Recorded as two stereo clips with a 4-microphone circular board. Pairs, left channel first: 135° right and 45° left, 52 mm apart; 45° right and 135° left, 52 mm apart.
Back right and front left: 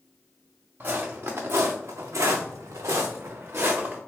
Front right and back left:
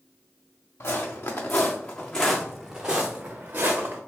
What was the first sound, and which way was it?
Footsteps, 5° right.